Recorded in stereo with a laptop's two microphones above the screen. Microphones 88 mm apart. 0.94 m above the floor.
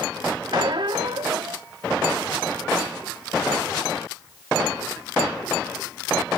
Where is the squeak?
65° right (ahead or behind), 0.9 m.